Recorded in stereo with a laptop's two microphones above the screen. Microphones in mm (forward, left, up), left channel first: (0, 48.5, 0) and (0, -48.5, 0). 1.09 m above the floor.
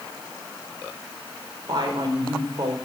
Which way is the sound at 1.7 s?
50° right (ahead or behind).